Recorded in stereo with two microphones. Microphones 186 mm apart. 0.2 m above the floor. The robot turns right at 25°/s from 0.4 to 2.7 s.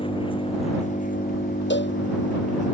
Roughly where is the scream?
No scream in this recording.